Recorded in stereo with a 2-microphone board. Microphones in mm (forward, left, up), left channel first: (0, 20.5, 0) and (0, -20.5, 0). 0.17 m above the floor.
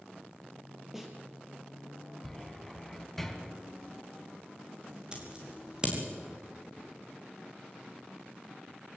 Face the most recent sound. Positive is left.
turn(degrees=-20)  # may be behind; listen again after turning